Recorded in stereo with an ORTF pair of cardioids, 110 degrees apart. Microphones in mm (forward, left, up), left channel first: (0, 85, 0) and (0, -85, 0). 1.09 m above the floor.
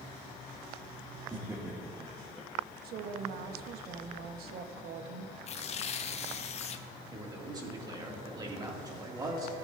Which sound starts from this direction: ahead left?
Tearing paper, at 5.5 s.